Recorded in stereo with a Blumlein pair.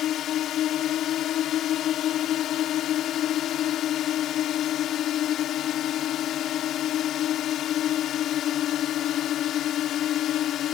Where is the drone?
30° left.